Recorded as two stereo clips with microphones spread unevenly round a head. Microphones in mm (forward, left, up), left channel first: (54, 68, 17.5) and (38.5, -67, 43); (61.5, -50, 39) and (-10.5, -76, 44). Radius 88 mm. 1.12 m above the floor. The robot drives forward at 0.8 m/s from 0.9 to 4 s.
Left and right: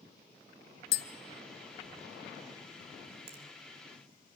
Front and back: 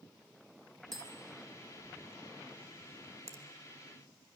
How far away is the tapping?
About 0.6 m.